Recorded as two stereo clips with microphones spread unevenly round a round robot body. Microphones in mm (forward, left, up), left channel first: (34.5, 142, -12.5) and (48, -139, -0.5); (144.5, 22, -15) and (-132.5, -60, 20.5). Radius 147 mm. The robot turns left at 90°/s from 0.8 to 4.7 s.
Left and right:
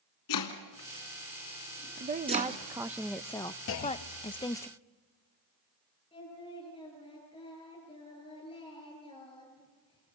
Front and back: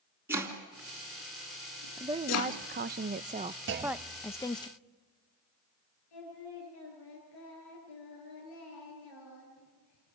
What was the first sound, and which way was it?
Chopping, 115° left.